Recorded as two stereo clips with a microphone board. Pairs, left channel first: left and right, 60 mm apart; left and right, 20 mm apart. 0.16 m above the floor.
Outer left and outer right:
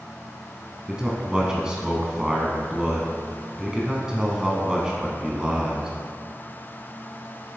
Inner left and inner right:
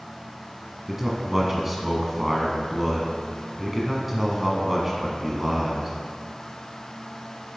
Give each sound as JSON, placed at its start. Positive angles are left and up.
{"t": 0.9, "sound": "a man speaking", "side_deg": -15, "distance_m": 1.1}